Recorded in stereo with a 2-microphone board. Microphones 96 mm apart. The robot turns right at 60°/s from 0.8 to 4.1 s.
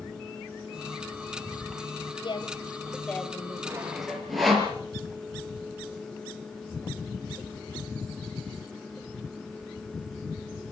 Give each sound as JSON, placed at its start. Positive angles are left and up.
{"t": 2.2, "sound": "a woman speaking", "azimuth_deg": 115, "distance_m": 2.0}
{"t": 3.6, "sound": "sawing", "side_deg": -25, "distance_m": 4.5}